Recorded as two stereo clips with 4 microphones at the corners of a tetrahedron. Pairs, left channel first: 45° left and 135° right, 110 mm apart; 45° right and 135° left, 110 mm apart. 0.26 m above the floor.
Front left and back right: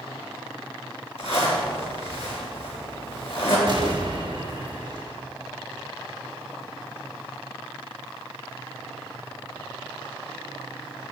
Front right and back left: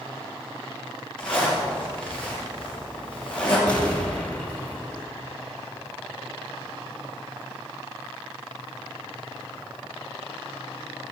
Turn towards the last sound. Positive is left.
turn(degrees=-120)